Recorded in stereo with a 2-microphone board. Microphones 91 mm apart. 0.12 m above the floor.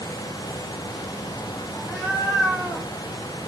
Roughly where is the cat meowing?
Centre.